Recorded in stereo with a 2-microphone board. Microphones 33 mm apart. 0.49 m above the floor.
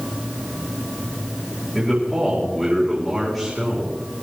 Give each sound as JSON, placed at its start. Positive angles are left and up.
{"t": 1.8, "sound": "a man speaking", "side_deg": -10, "distance_m": 5.5}